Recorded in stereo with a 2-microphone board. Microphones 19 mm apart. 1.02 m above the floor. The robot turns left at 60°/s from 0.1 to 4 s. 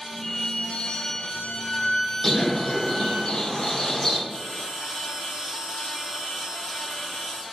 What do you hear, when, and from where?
0.2 s a violin: 140° left, 0.6 m; by 3.2 s 40° right, 0.6 m
2.2 s a bird: 145° left, 0.8 m; by 4.2 s 35° left, 0.8 m
4.3 s a bell: 30° right (ahead or behind), 1.9 m